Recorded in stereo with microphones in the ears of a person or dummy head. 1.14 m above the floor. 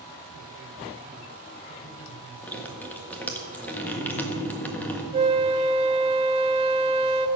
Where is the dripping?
5° left (ahead or behind), 1.4 m.